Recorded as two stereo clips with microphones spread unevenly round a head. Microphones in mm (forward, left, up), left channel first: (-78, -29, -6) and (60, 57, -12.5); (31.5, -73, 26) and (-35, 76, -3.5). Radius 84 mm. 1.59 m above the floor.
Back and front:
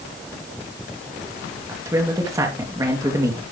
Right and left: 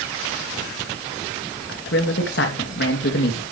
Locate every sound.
1.7 s a man speaking: 40° right, 2.5 m